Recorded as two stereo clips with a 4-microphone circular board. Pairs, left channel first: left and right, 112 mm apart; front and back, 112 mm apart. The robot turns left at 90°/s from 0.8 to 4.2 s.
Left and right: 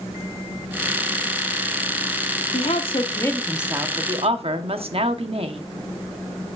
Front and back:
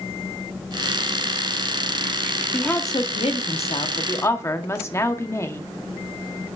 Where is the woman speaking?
85° left, 0.9 m; by 5.6 s 65° right, 0.9 m.